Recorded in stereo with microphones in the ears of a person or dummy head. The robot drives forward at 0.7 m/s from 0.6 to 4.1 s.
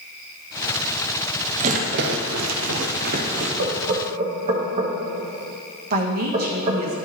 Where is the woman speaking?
50° right (ahead or behind), 1.1 m.